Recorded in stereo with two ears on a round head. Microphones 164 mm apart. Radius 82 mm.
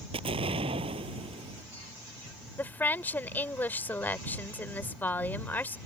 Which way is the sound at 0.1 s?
30° right (ahead or behind).